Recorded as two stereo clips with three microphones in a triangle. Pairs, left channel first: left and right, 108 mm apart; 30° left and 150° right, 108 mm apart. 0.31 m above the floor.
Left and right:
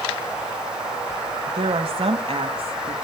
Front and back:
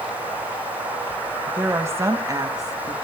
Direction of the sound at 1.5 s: 80° right.